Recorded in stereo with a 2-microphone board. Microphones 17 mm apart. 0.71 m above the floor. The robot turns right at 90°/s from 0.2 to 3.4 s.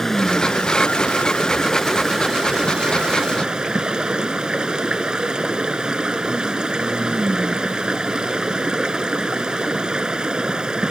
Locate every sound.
0.0 s running water: 15° left; by 10.9 s 55° right